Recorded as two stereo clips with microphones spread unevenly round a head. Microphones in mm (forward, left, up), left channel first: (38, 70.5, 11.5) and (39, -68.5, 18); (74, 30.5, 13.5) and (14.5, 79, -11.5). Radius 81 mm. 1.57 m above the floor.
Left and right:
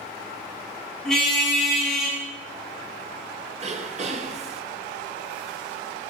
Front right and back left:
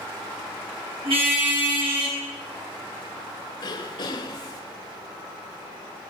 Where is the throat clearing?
50° right, 4 m.